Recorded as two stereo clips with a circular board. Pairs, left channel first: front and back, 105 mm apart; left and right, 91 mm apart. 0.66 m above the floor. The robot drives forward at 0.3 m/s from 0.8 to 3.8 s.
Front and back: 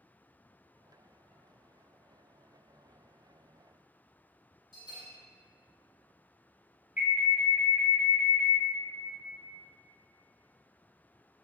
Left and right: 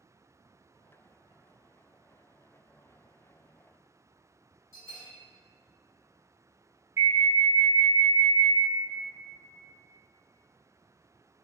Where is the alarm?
115° right, 0.6 m.